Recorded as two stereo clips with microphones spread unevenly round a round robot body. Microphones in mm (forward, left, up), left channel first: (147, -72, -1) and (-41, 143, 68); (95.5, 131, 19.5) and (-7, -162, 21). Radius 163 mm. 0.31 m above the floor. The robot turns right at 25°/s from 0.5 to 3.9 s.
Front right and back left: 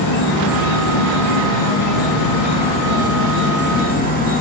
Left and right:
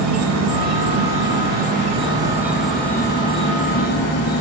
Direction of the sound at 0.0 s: 75° right.